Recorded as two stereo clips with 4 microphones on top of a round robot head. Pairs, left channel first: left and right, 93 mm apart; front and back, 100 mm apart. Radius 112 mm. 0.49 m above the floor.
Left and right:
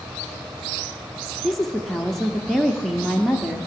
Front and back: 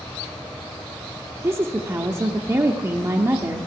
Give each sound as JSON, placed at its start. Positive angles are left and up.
{"t": 1.4, "sound": "a woman speaking", "azimuth_deg": 180, "distance_m": 0.8}